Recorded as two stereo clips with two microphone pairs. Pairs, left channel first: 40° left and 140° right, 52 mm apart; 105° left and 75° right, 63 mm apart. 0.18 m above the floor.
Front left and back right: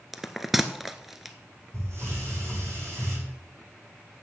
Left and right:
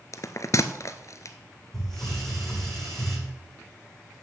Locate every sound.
0.1 s a bell: 135° left, 0.8 m
1.7 s a hiss: 170° right, 7.5 m